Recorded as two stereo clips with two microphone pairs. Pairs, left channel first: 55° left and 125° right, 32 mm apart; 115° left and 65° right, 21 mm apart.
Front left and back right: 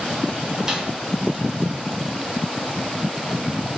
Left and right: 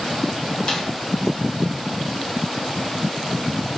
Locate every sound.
0.7 s a snare drum: 160° left, 1.0 m